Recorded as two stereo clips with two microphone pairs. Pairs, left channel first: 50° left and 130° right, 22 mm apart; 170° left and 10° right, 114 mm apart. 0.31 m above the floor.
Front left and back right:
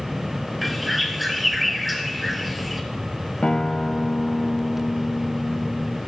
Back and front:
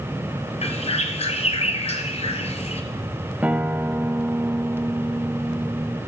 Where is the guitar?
60° left, 0.5 m.